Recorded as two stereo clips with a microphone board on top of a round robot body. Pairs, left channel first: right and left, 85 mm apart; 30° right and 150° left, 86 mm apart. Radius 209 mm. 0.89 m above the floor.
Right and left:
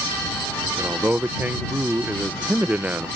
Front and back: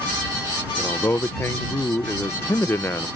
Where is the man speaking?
25° left.